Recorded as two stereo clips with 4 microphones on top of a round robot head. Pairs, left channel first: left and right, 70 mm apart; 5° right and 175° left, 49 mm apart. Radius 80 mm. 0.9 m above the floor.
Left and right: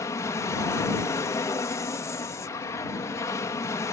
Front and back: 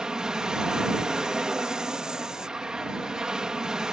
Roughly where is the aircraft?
Left.